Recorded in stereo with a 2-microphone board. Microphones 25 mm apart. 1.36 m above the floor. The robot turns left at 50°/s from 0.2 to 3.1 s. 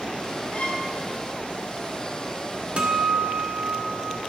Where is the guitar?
55° right (ahead or behind), 1.0 m.